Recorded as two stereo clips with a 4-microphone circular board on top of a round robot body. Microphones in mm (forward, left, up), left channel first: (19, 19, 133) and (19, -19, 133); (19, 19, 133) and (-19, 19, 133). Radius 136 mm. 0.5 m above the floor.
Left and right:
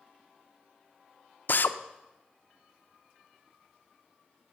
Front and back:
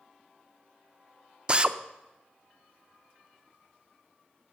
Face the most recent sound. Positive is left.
turn(degrees=115)